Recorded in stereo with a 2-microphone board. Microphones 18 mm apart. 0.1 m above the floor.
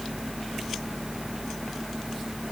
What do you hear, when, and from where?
Only background noise.